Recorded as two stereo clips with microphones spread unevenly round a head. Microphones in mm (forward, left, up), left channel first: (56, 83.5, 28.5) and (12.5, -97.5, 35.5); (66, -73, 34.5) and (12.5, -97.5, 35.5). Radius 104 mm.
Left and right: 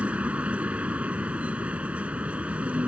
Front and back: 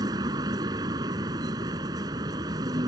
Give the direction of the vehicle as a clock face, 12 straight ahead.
6 o'clock.